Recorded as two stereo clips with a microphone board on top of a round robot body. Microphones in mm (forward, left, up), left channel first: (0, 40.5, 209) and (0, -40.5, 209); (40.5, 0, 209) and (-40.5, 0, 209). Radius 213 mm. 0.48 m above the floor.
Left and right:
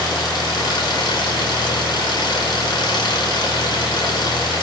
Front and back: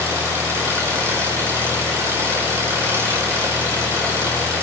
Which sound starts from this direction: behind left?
An engine running, at 0.0 s.